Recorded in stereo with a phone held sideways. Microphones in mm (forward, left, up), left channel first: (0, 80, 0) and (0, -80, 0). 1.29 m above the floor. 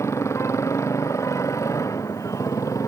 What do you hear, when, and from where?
0.0 s a motorcycle: 20° left (ahead or behind)